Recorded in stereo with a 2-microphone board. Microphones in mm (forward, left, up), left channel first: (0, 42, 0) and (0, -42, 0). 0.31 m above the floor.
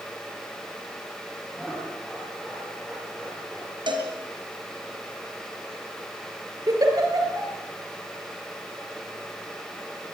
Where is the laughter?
Centre (ahead or behind), 9 m; by 3.8 s 10° right (ahead or behind), 7 m.